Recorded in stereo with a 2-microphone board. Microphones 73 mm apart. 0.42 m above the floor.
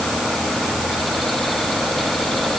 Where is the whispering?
I don't hear whispering.